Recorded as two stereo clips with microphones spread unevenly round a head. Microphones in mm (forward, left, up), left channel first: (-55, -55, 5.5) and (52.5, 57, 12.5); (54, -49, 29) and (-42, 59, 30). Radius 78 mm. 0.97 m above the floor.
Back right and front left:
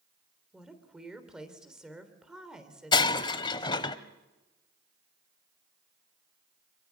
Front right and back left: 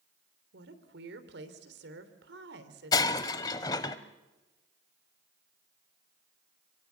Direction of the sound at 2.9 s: 95° right.